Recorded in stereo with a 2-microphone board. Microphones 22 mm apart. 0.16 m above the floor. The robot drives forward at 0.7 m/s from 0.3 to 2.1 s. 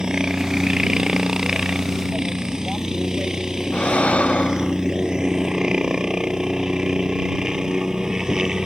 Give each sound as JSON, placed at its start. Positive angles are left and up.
{"t": 0.0, "sound": "a helicopter", "side_deg": -35}
{"t": 3.7, "sound": "breathing", "side_deg": 90}